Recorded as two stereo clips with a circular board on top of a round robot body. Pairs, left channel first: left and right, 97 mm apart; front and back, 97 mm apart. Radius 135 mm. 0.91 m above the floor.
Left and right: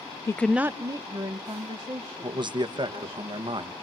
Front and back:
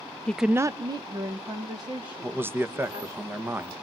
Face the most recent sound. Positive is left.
turn(degrees=-115)